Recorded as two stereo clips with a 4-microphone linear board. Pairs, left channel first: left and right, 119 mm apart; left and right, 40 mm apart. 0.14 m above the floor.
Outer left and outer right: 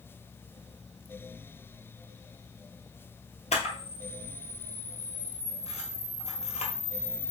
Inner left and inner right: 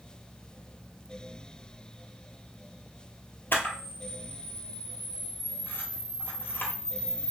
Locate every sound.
3.5 s a camera shutter: 70° left (ahead or behind), 1.3 m